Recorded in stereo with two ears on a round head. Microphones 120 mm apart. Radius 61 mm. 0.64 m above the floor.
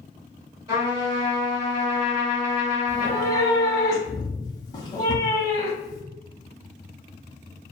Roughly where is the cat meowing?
Left.